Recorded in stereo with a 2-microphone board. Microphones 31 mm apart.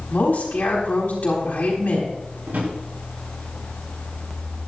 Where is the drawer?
75° right (ahead or behind), 5 m.